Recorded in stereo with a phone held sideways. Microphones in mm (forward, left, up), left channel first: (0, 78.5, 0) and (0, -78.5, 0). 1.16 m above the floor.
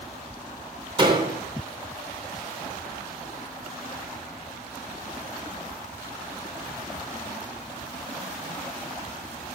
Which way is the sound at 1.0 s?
35° right (ahead or behind).